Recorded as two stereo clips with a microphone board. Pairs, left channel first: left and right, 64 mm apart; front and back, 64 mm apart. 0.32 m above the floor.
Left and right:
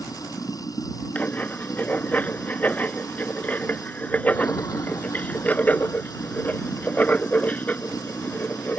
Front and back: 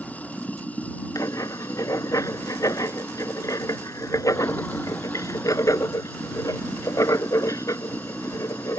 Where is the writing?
25° left.